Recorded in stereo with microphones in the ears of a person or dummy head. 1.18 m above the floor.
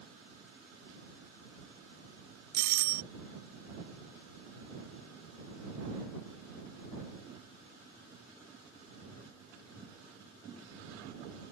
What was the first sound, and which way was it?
A doorbell, 55° right (ahead or behind).